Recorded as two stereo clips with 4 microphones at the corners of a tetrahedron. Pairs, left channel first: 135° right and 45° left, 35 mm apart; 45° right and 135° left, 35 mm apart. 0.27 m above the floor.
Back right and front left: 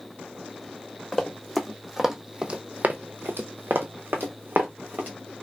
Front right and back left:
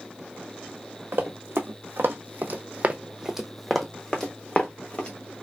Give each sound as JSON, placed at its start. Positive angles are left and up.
{"t": 1.1, "sound": "running footsteps", "azimuth_deg": 140, "distance_m": 1.1}